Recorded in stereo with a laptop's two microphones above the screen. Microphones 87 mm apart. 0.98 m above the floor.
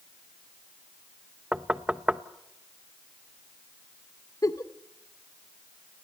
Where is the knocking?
10° right (ahead or behind), 0.9 m.